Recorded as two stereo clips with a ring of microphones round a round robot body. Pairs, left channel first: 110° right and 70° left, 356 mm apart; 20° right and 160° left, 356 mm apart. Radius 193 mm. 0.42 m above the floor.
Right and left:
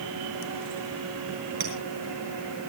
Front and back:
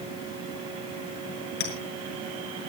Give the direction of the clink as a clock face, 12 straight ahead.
11 o'clock.